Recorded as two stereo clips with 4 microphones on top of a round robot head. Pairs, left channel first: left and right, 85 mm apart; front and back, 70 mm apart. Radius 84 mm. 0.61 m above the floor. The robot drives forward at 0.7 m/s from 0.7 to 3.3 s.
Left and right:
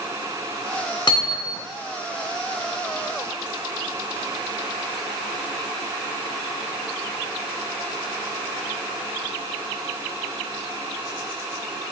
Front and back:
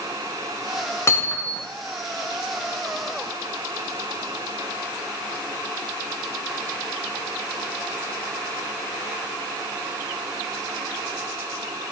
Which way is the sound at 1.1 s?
55° left.